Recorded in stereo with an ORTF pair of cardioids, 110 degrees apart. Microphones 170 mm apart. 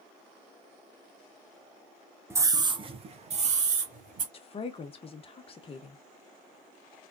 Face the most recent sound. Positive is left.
turn(degrees=35)